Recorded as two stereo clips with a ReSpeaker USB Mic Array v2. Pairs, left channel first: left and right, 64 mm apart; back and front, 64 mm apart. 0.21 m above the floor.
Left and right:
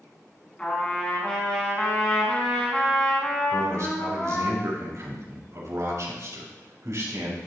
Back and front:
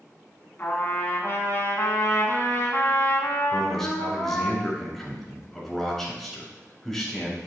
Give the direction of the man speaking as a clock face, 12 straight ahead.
3 o'clock.